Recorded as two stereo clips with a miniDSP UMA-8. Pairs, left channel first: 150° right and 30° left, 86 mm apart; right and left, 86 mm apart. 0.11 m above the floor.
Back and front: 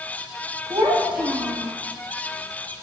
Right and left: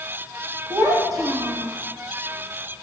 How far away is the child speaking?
About 2.5 m.